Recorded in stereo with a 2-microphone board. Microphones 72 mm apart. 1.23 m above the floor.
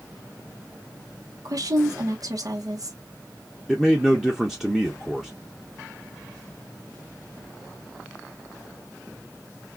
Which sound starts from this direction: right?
A woman speaking, at 1.4 s.